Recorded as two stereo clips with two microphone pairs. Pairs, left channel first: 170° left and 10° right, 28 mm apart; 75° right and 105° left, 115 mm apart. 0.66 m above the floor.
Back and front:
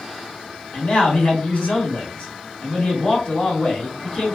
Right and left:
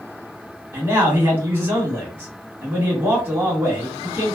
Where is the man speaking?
170° left, 1.7 m.